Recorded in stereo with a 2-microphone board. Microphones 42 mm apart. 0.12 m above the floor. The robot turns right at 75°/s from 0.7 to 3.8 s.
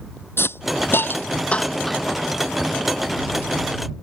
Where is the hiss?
70° left (ahead or behind); by 2.2 s 15° right (ahead or behind).